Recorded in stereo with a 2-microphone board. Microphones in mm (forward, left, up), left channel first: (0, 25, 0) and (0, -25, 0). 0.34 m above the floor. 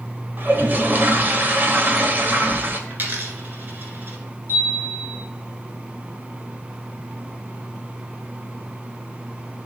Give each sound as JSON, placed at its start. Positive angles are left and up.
{"t": 0.4, "sound": "a toilet flushing", "side_deg": -40, "distance_m": 0.9}
{"t": 2.9, "sound": "a dropped coin", "side_deg": -45, "distance_m": 1.5}
{"t": 4.5, "sound": "a chime", "side_deg": -55, "distance_m": 3.0}